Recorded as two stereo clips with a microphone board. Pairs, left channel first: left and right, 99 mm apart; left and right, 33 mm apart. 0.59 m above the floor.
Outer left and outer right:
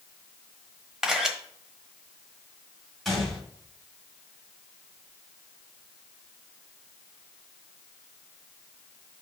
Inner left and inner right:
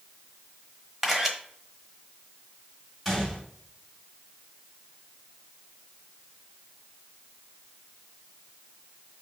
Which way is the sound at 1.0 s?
5° right (ahead or behind).